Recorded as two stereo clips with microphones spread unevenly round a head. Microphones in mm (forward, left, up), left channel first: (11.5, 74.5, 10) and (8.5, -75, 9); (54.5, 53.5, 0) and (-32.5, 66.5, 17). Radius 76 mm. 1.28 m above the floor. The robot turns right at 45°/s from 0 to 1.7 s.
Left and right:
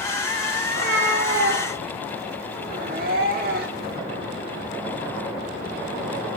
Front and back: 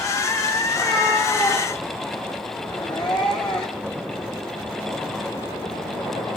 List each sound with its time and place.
0.7 s a cat meowing: 115° right, 1.4 m; by 4.0 s 70° right, 1.4 m